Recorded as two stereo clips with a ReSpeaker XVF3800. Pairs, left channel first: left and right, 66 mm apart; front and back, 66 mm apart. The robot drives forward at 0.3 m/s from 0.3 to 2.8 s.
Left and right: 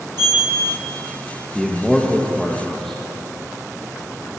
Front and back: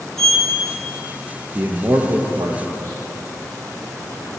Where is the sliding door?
85° right, 2.5 m.